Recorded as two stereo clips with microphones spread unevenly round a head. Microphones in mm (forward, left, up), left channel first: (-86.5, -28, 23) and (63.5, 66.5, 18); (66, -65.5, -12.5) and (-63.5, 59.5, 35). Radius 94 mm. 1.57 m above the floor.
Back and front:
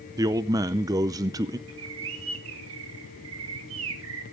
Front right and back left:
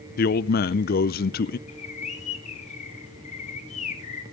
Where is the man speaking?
30° right, 0.5 m.